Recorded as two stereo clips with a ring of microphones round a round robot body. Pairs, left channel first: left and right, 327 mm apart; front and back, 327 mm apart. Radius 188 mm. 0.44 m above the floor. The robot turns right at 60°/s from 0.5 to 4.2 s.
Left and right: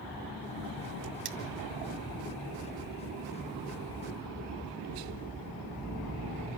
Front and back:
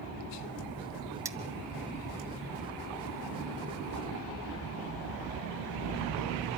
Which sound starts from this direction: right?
Cutlery clinking, at 1.2 s.